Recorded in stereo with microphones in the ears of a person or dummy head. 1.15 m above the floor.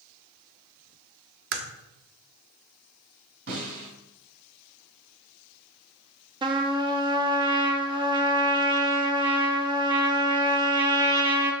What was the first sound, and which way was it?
A crack, 55° right (ahead or behind).